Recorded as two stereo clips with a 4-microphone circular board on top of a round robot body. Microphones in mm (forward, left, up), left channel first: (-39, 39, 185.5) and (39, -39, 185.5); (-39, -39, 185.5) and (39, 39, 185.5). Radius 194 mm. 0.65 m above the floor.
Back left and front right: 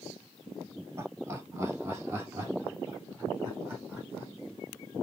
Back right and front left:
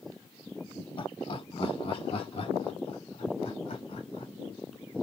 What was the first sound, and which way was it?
Laughter, 105° right.